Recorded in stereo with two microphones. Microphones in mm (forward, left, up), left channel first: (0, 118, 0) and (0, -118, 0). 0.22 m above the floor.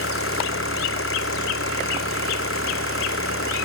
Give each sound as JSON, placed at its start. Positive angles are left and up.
{"t": 0.0, "sound": "an engine running", "side_deg": 65}